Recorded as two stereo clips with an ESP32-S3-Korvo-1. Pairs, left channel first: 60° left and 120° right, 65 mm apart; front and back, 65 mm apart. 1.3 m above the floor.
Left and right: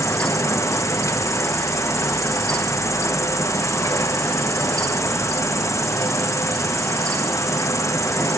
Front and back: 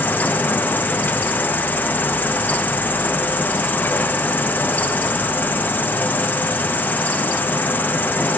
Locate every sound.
0.0 s an insect: 55° left, 0.8 m